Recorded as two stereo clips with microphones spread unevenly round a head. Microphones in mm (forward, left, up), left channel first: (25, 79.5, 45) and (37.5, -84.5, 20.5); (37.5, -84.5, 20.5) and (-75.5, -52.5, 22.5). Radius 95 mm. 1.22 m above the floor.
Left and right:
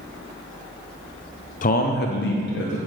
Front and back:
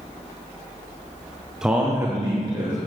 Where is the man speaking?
80° left, 0.5 m; by 2.8 s 105° left, 1.2 m.